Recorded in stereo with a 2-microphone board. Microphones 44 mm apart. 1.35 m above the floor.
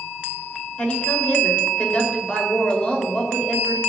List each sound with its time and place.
0.8 s a woman speaking: 25° left (ahead or behind), 4 m